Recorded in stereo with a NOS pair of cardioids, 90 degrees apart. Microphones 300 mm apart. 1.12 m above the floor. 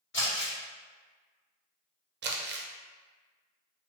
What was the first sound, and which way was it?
Crumpling, 40° left.